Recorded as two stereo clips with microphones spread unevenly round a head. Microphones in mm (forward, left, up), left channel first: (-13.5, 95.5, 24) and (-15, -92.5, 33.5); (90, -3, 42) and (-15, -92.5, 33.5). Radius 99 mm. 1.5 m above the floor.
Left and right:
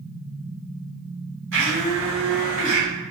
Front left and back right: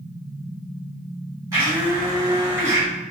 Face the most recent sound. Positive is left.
turn(degrees=-80)